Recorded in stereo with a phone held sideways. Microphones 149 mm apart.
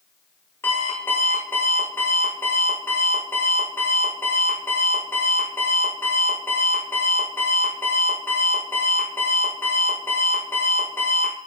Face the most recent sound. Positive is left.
turn(degrees=15)  # may be behind; listen again after turning